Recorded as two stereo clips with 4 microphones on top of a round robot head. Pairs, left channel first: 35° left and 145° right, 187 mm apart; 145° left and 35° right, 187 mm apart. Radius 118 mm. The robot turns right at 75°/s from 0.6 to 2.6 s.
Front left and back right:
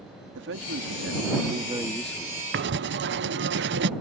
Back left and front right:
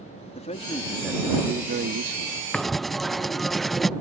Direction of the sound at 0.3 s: 160° right.